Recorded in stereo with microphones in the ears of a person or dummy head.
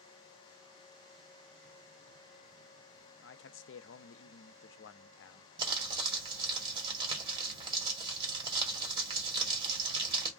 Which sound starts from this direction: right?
Crumpling, at 5.6 s.